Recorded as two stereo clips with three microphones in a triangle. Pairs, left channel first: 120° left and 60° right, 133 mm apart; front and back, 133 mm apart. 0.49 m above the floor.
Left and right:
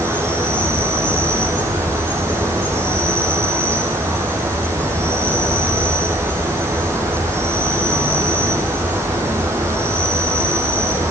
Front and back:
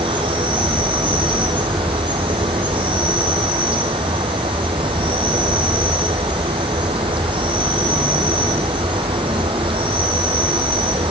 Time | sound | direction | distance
0.0 | an insect | 130° right | 6 m